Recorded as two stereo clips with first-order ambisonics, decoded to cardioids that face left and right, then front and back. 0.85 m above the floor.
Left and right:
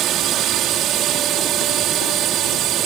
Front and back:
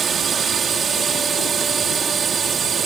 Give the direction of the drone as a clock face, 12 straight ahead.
4 o'clock.